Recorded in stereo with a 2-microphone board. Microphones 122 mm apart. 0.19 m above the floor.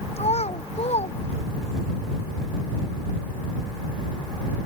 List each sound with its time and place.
0.2 s a child speaking: 65° left (ahead or behind)